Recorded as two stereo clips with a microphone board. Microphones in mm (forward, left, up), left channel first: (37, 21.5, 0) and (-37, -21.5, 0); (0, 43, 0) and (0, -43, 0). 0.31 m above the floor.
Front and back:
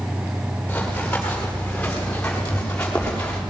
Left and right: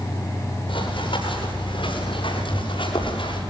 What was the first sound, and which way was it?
Running footsteps, 105° left.